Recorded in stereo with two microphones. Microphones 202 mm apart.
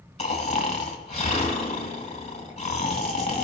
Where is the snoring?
35° left (ahead or behind), 1.1 m.